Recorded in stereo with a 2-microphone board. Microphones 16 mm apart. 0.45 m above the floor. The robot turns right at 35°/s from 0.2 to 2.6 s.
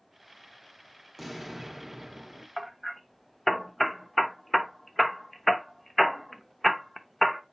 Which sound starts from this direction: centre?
Hammering, at 2.6 s.